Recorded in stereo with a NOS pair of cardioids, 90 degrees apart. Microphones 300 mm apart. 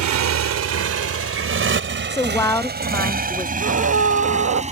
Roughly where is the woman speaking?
Ahead.